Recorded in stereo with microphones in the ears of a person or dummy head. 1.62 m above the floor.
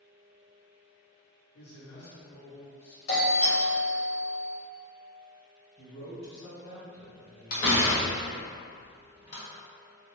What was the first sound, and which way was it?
A man speaking, 75° left (ahead or behind).